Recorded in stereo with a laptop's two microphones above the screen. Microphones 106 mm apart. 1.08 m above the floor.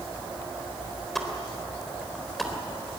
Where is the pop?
Centre (ahead or behind), 3.5 m.